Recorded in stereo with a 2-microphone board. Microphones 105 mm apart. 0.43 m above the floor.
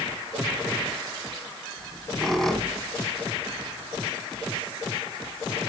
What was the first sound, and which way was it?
A squeak, centre (ahead or behind).